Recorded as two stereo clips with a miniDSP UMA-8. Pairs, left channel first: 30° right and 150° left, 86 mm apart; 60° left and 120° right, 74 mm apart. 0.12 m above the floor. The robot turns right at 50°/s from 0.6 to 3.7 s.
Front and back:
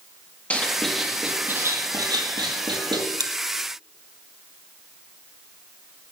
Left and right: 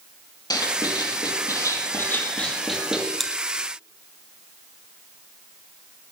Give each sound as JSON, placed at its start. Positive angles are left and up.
{"t": 0.5, "sound": "writing", "azimuth_deg": 40, "distance_m": 4.0}
{"t": 3.2, "sound": "chewing", "azimuth_deg": 145, "distance_m": 1.8}